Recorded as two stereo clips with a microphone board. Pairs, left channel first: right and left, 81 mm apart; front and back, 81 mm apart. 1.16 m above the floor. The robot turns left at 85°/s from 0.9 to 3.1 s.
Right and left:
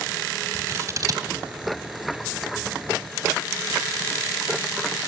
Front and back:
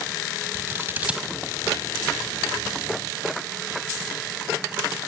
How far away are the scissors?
About 1.5 m.